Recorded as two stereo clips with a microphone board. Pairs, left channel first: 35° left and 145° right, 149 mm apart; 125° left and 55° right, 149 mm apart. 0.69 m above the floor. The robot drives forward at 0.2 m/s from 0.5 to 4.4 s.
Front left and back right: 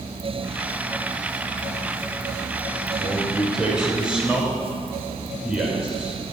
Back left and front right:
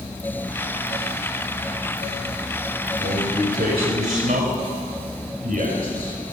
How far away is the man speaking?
About 3.5 m.